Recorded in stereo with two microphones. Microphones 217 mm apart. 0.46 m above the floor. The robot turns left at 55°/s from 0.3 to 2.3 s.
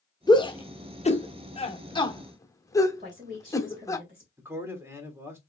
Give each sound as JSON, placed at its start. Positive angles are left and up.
{"t": 0.3, "sound": "a shout", "side_deg": 20, "distance_m": 1.1}
{"t": 3.0, "sound": "a woman speaking", "side_deg": -40, "distance_m": 2.0}
{"t": 4.4, "sound": "a man speaking", "side_deg": -10, "distance_m": 1.4}